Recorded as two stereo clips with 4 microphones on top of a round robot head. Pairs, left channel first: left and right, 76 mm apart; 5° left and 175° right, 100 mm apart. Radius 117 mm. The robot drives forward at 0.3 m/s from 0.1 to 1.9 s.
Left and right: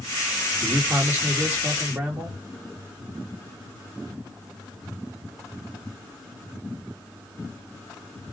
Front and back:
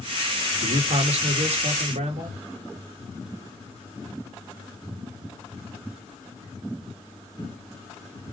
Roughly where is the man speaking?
Behind.